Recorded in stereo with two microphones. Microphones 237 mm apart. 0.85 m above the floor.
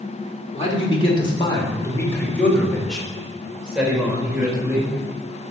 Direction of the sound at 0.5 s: 30° left (ahead or behind).